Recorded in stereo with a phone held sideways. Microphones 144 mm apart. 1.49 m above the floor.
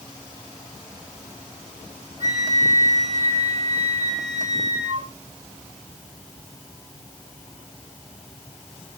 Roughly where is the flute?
Right.